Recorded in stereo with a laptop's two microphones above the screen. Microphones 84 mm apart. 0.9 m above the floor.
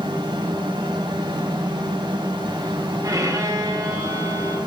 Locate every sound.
0.0 s a fan: 70° right (ahead or behind), 2 m
3.0 s a violin: 40° right (ahead or behind), 2.5 m